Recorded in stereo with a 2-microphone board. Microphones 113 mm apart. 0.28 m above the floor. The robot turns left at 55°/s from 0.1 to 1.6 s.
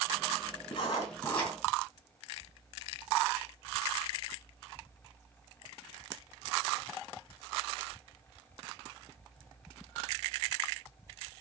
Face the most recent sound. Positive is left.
turn(degrees=5)